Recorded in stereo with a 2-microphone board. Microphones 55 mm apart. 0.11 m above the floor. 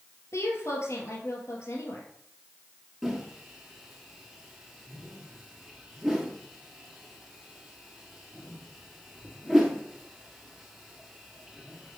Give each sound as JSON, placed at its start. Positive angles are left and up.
{"t": 0.3, "sound": "a woman speaking", "side_deg": 60, "distance_m": 2.0}
{"t": 3.0, "sound": "a whoosh", "side_deg": -5, "distance_m": 1.5}